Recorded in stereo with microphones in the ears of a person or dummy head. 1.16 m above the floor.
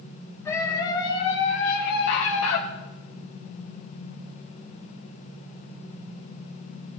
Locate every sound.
0.5 s a scream: 20° left (ahead or behind), 3 m; by 2.6 s 75° left (ahead or behind), 1.7 m